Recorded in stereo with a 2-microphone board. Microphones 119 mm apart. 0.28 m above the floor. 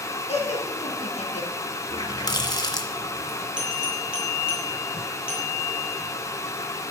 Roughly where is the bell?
Centre.